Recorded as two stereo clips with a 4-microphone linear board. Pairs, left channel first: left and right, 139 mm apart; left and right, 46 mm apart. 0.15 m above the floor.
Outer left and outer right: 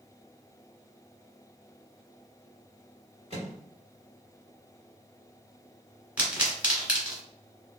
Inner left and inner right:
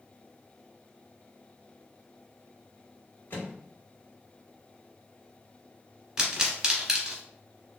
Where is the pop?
10° right (ahead or behind), 1.6 m.